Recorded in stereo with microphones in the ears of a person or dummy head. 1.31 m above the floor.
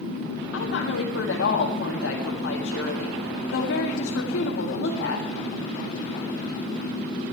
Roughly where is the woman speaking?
Left.